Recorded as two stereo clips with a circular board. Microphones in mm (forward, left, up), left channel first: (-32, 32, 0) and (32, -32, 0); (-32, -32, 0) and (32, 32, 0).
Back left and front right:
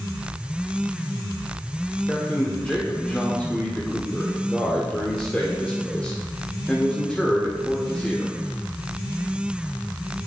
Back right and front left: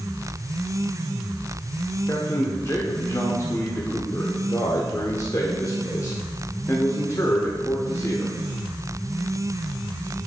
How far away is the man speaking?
About 0.8 m.